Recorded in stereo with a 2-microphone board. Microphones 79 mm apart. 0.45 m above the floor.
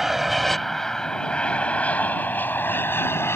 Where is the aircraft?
Centre (ahead or behind); by 3.4 s 35° left (ahead or behind).